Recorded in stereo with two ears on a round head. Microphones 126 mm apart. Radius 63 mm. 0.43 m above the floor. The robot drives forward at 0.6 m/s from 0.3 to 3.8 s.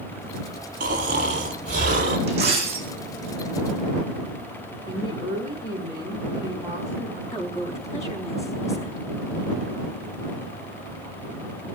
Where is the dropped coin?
50° right (ahead or behind), 6 m; by 2.9 s 45° right (ahead or behind), 6.5 m.